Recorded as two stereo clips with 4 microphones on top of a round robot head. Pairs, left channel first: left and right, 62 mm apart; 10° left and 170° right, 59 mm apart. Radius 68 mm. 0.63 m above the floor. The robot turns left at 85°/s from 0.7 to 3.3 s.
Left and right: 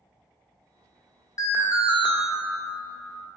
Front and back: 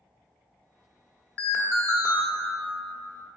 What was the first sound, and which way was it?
An alarm, 70° left.